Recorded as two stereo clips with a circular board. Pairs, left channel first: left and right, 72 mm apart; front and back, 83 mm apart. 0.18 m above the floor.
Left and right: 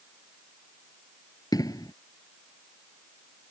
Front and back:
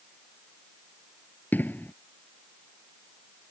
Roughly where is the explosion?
Ahead left.